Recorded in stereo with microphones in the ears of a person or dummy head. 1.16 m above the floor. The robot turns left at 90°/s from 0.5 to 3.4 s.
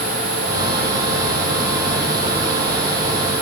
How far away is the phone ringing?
No phone ringing in this recording.